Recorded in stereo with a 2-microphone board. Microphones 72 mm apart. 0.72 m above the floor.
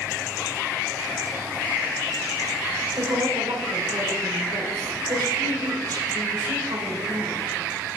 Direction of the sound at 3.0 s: 70° right (ahead or behind).